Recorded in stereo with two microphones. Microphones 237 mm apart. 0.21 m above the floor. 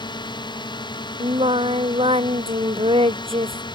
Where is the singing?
25° right (ahead or behind).